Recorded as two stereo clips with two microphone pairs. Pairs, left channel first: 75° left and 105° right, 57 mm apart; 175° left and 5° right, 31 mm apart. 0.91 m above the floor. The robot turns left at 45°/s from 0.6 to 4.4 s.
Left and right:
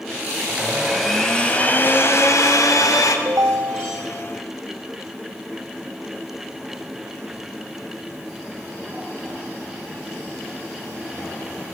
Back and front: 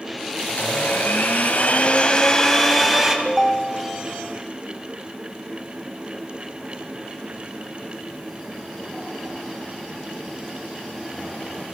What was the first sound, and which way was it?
A blender, straight behind.